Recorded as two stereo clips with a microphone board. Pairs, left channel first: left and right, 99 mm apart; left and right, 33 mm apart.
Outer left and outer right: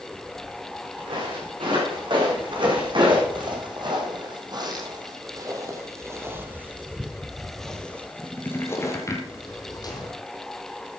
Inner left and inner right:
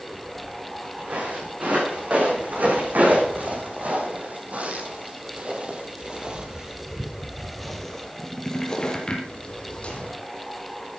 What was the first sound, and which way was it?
Footsteps, 60° right (ahead or behind).